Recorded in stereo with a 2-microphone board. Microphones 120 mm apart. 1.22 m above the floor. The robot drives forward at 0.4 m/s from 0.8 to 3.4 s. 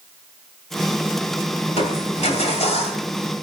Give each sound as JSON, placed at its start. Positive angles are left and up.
{"t": 1.7, "sound": "crushing", "side_deg": 70, "distance_m": 2.5}